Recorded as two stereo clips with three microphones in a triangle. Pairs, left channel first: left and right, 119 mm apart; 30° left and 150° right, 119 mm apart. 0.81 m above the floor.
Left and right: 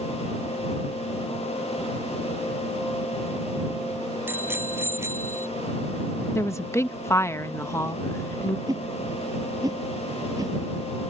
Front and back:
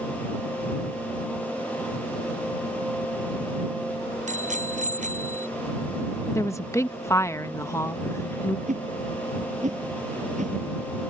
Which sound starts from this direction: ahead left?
A woman speaking, at 6.3 s.